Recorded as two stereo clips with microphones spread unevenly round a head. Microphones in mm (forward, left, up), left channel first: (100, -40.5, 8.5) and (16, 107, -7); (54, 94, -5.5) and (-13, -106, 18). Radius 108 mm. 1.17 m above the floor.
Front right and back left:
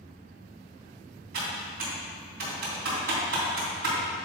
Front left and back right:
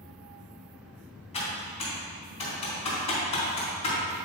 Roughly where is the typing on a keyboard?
Behind left.